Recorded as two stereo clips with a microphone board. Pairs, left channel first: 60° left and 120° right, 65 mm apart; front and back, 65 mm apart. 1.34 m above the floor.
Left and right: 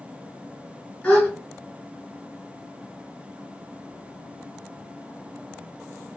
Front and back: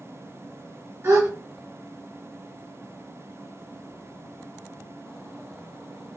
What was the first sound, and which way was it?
A gasp, 130° left.